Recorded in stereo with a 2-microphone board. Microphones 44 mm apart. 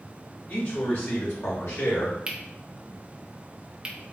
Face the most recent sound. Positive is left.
turn(degrees=-20)  # may be behind; listen again after turning